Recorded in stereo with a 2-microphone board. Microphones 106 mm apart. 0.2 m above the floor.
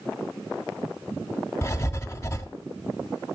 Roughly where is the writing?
Left.